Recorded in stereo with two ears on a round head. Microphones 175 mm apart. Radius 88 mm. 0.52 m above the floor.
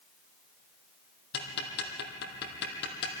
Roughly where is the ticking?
Left.